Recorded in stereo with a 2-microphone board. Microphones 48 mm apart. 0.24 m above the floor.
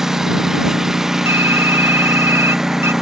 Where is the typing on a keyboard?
65° right (ahead or behind).